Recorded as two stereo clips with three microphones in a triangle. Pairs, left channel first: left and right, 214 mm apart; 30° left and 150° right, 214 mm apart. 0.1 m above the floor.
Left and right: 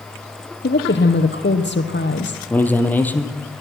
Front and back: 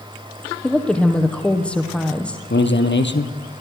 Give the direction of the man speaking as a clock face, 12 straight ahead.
12 o'clock.